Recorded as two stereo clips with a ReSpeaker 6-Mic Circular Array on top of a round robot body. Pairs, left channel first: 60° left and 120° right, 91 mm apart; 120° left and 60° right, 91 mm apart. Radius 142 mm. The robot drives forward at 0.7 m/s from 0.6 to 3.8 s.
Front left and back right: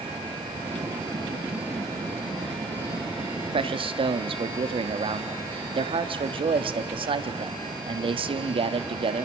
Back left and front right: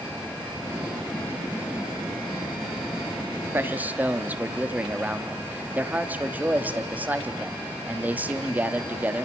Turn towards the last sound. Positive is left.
turn(degrees=-130)